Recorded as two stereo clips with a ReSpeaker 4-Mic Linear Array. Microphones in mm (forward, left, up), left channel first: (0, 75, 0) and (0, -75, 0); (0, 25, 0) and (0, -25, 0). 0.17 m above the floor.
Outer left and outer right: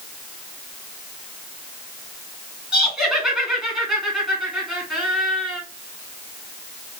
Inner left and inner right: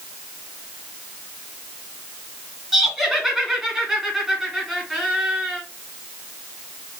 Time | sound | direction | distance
2.7 | laughter | centre (ahead or behind) | 1.8 m